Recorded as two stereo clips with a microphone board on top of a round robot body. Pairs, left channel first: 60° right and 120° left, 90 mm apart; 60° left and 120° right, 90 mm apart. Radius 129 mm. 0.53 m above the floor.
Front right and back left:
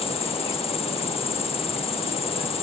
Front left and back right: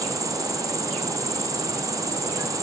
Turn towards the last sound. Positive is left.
turn(degrees=-65)